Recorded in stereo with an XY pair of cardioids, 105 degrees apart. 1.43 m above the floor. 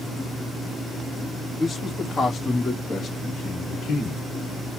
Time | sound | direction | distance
1.6 | a man speaking | 25° left | 2.5 m